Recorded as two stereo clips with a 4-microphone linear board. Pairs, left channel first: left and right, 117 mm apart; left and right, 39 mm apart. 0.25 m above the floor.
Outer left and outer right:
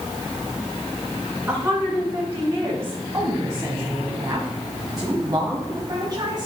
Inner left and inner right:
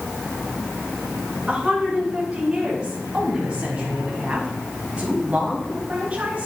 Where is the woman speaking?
20° right (ahead or behind), 3 m; by 6.5 s 40° right (ahead or behind), 1.7 m.